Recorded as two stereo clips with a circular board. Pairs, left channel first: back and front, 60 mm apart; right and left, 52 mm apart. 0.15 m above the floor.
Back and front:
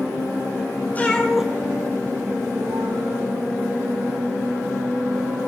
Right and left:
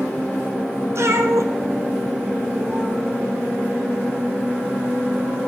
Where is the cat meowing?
120° left, 1.2 m; by 3.0 s straight ahead, 2.5 m.